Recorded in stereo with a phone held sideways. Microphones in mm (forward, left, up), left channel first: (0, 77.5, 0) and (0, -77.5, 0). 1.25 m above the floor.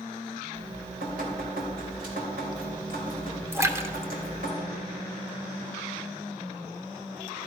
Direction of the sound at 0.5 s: 75° right (ahead or behind).